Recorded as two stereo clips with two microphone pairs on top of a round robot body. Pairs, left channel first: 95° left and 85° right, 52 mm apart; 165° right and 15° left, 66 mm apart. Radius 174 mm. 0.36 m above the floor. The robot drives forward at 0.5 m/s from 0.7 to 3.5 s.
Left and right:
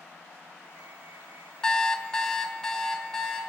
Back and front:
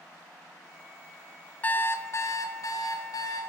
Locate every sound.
1.6 s an alarm clock: 145° left, 0.6 m; by 3.4 s 175° left, 1.2 m